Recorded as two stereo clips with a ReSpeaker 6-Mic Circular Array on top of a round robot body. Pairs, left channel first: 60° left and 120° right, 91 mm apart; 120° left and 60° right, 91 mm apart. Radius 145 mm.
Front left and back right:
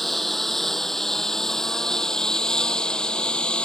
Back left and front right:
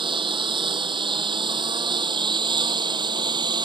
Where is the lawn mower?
30° right; by 3.7 s 20° right.